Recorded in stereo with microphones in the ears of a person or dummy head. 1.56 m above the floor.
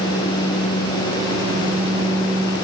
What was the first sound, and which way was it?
Only background noise.